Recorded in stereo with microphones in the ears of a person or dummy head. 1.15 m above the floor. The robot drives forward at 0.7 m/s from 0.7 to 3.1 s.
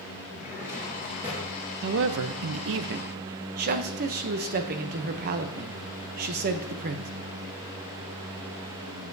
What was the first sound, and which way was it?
A drawer, 15° right (ahead or behind).